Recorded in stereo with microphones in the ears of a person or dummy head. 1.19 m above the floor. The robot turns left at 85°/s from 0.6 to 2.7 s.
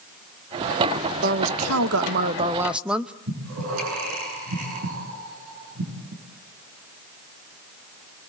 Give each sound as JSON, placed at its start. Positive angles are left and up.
{"t": 1.2, "sound": "a woman speaking", "azimuth_deg": -45, "distance_m": 0.9}
{"t": 3.3, "sound": "breathing", "side_deg": -85, "distance_m": 8.5}